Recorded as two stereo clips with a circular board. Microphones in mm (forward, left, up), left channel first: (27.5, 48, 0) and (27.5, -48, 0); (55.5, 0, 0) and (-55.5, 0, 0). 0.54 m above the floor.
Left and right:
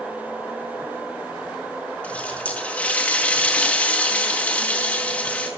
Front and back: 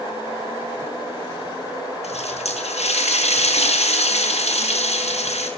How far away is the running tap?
About 4.5 m.